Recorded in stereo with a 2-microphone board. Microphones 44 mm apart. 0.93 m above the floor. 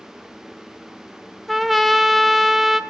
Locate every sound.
1.5 s a trumpet: centre (ahead or behind), 0.6 m